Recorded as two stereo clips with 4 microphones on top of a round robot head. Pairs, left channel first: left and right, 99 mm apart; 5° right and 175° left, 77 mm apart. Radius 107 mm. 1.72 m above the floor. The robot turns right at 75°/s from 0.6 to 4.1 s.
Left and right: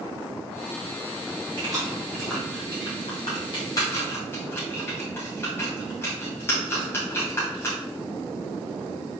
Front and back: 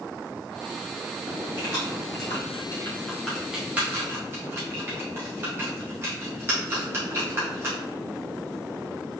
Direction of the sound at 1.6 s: 50° right.